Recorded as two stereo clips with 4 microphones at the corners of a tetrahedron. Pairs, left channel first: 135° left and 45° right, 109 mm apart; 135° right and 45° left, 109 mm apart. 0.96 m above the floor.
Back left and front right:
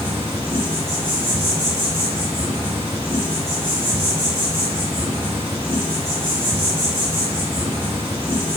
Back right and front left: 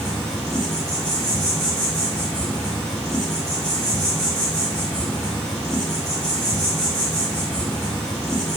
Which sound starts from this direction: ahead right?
An insect, at 0.0 s.